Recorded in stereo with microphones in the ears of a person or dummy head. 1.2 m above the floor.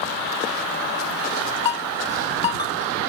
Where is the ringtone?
30° left (ahead or behind).